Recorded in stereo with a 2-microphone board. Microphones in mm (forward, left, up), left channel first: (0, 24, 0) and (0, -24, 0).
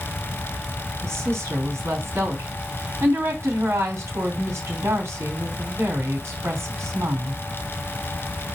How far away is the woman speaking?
About 4 m.